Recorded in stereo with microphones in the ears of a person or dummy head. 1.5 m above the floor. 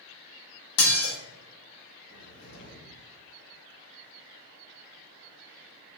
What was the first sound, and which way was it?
Dishes clattering, 70° left (ahead or behind).